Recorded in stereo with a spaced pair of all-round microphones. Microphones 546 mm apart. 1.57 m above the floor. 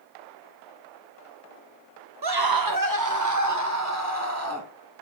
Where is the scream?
45° right (ahead or behind), 0.7 m; by 4.7 s 25° right (ahead or behind), 2.5 m.